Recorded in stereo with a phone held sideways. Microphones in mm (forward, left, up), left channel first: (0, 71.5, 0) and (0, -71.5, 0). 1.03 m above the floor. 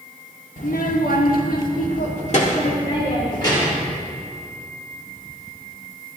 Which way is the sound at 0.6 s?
65° left (ahead or behind).